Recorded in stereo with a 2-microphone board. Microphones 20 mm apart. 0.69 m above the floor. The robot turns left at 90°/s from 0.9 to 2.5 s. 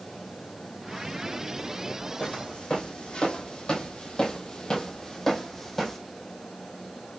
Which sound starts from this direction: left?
Footsteps, at 2.2 s.